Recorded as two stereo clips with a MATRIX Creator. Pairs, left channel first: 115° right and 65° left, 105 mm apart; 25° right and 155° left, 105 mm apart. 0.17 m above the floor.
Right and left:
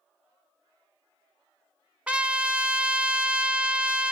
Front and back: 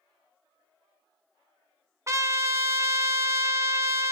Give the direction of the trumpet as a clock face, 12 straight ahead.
7 o'clock.